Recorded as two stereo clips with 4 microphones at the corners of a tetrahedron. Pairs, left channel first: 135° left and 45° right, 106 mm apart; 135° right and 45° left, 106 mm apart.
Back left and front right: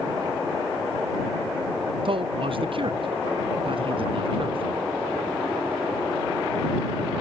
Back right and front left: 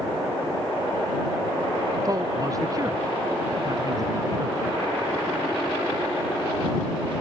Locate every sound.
2.0 s a man speaking: 10° right